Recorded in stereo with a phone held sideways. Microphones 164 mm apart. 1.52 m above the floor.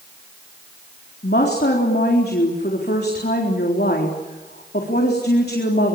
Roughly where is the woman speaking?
Left.